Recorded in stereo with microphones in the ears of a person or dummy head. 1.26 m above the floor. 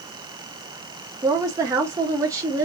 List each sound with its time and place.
1.2 s a woman speaking: 20° right (ahead or behind), 0.5 m